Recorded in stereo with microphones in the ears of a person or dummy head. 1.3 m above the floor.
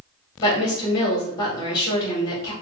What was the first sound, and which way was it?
A woman speaking, 25° left (ahead or behind).